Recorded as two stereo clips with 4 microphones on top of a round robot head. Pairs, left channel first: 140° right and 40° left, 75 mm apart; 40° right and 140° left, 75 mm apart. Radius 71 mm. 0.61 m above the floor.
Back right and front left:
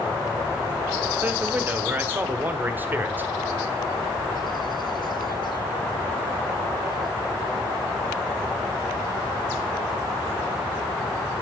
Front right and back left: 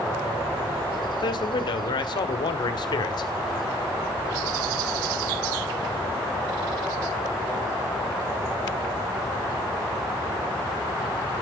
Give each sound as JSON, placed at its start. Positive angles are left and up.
{"t": 1.2, "sound": "a man speaking", "azimuth_deg": -25, "distance_m": 1.7}